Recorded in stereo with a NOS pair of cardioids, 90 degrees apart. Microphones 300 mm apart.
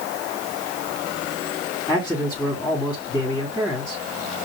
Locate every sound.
1.9 s a man speaking: 5° left, 2.5 m